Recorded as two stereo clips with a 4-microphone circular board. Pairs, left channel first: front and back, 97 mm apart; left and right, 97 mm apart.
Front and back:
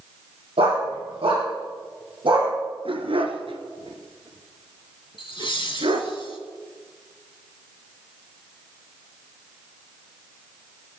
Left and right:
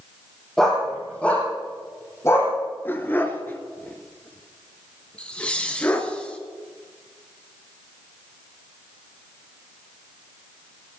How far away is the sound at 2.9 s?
About 1.7 m.